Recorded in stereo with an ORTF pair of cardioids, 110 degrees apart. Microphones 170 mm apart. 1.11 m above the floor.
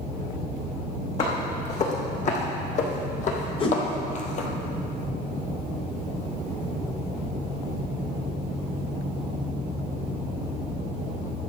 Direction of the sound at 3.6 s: 35° left.